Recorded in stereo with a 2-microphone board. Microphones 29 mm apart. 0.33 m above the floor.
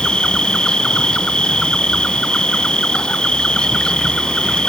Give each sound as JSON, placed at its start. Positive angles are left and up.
{"t": 0.0, "sound": "an insect", "side_deg": 30}